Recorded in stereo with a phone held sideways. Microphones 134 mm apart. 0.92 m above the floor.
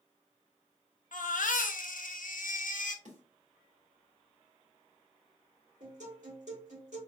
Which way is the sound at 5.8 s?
65° right (ahead or behind).